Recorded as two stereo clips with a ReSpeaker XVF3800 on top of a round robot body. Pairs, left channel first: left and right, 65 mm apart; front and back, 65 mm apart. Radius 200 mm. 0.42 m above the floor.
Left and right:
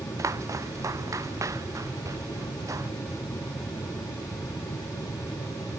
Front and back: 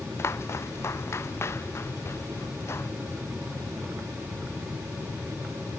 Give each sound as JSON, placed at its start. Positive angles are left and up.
{"t": 0.2, "sound": "footsteps", "azimuth_deg": -50}